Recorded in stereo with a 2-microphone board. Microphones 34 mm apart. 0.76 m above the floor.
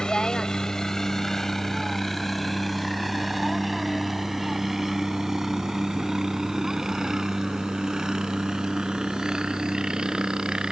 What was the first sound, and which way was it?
A helicopter, 20° left (ahead or behind).